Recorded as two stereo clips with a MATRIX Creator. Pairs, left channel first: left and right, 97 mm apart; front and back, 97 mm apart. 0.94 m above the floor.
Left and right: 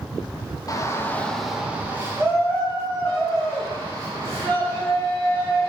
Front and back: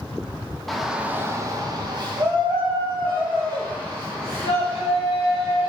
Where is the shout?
85° left, 0.6 m; by 5.7 s 135° right, 3 m.